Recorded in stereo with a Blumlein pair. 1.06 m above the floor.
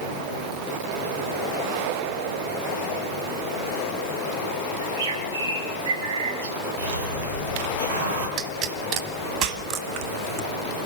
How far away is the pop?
About 2 m.